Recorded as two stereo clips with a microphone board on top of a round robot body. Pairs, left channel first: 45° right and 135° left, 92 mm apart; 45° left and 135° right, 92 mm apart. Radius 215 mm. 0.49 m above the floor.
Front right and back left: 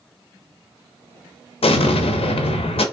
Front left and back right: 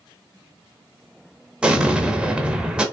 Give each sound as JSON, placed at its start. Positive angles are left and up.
{"t": 1.6, "sound": "an explosion", "azimuth_deg": -55, "distance_m": 0.6}